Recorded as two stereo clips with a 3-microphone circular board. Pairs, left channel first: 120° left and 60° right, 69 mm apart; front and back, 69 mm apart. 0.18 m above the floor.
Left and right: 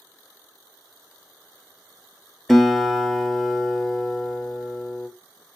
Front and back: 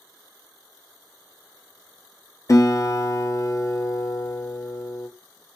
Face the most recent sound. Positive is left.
turn(degrees=35)